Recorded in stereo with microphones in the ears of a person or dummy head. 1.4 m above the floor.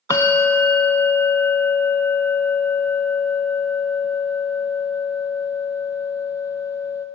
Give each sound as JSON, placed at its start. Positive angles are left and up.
{"t": 0.1, "sound": "a bell", "side_deg": 20, "distance_m": 0.6}